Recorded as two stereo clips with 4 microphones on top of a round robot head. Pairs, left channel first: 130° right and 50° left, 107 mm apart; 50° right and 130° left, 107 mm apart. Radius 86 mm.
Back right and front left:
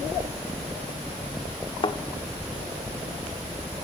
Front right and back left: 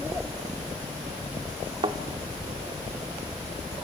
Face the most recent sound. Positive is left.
turn(degrees=180)